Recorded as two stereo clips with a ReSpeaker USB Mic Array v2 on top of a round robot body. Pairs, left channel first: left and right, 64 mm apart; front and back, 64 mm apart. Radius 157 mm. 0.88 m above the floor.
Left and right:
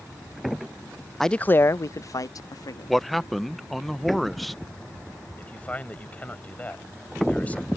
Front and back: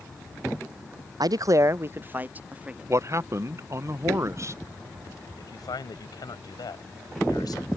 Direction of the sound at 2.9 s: 175° left.